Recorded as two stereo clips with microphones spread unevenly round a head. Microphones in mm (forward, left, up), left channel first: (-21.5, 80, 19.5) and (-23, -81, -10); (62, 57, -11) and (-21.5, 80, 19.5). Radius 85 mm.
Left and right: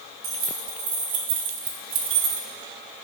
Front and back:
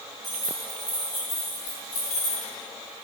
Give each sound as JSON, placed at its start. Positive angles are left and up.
{"t": 0.2, "sound": "keys jangling", "azimuth_deg": -120, "distance_m": 2.5}